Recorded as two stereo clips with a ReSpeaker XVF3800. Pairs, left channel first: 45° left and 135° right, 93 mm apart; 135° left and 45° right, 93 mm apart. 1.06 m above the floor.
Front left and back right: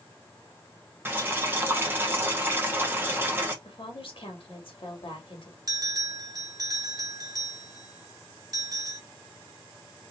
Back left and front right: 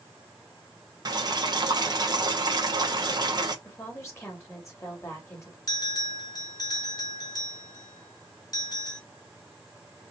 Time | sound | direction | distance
1.1 | boiling | 75° right | 1.0 m
3.6 | a woman speaking | 75° left | 2.0 m
5.7 | a bell | straight behind | 1.4 m